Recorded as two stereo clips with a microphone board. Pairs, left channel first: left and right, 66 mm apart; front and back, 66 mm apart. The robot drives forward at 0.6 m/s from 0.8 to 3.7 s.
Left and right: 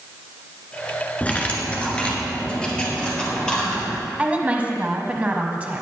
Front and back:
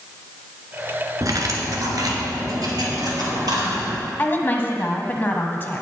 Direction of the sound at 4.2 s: 35° right.